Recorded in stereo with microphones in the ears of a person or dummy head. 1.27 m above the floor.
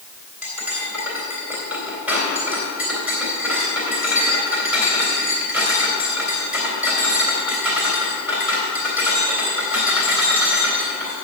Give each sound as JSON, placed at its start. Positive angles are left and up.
{"t": 0.4, "sound": "cutlery clinking", "side_deg": -5, "distance_m": 3.0}